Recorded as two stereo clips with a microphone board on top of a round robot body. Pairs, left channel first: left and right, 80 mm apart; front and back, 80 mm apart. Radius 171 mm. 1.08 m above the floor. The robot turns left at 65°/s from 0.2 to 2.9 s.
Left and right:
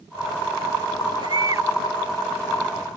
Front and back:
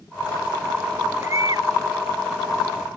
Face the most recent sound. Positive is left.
turn(degrees=130)